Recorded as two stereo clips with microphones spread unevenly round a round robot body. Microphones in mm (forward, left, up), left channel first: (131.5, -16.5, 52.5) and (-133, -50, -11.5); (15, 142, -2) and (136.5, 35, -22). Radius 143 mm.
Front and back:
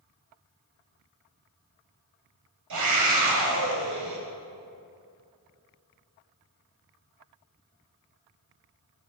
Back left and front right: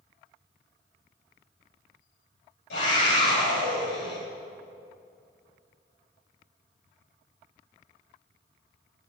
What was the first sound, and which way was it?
A scream, 175° left.